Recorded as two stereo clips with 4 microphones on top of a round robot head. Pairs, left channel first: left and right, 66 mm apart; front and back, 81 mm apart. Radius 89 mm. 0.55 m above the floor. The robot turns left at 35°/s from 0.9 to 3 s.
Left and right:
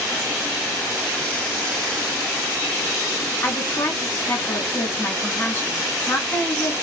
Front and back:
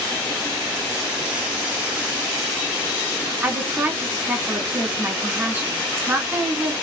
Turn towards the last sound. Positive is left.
turn(degrees=125)